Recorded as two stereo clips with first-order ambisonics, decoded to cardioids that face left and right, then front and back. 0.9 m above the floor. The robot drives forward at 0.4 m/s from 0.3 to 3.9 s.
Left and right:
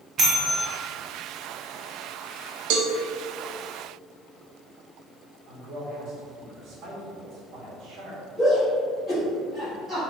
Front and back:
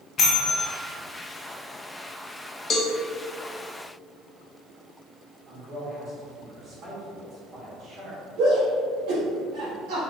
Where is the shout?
Straight behind, 1.6 m.